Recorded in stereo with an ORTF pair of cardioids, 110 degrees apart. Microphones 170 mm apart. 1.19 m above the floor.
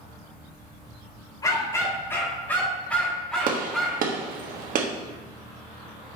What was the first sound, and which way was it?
A dog barking, 20° left.